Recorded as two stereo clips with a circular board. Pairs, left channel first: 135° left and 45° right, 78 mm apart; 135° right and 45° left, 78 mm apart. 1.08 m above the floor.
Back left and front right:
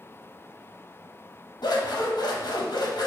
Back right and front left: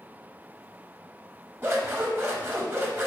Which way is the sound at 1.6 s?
105° left.